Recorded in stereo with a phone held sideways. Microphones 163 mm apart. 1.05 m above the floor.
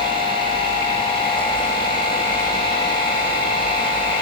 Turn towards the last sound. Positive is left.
turn(degrees=30)  # may be behind; listen again after turning